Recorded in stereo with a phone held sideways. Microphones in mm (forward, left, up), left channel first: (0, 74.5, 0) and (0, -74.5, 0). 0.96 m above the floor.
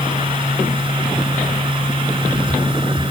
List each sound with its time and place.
0.0 s a machine running: 35° right (ahead or behind)